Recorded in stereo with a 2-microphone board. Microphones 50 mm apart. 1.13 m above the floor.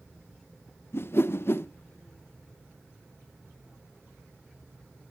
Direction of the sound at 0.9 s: 55° left (ahead or behind).